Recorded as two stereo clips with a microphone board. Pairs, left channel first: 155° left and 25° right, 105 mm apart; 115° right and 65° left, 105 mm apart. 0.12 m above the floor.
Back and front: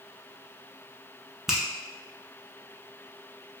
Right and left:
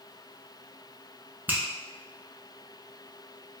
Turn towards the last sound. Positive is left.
turn(degrees=55)